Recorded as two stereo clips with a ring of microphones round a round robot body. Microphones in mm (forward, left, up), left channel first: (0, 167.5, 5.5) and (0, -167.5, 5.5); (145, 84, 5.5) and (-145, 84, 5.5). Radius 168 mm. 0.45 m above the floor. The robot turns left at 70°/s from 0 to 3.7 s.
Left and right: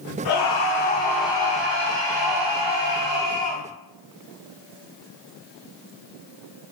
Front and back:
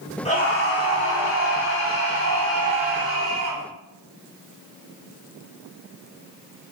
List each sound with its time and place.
0.2 s a scream: 70° left, 4.5 m; by 3.6 s 165° right, 4.5 m